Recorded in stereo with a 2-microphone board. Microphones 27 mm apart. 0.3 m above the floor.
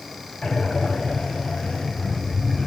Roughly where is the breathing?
Left.